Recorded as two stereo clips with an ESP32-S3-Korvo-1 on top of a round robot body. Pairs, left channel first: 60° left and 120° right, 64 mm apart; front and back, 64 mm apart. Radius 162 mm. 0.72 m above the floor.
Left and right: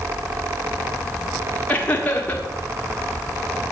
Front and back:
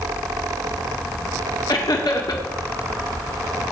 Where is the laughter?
5° right, 1.9 m.